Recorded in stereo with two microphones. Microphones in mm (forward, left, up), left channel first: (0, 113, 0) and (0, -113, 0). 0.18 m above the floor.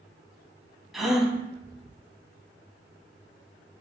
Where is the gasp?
Centre (ahead or behind), 0.5 m.